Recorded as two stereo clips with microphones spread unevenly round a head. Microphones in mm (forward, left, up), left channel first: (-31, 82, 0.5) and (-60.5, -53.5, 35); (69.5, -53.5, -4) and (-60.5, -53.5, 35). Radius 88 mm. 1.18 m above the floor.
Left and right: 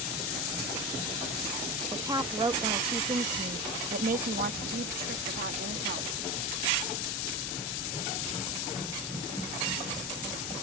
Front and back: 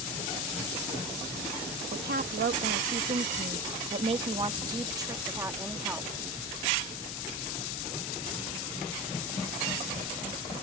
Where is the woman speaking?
175° right; by 6.1 s 105° right.